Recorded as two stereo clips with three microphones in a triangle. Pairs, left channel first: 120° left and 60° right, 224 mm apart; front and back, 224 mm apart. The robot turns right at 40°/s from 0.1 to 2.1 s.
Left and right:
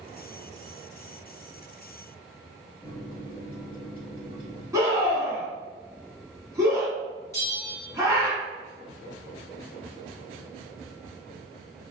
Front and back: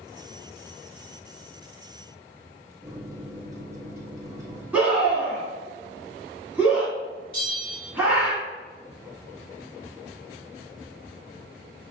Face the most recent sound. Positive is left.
turn(degrees=50)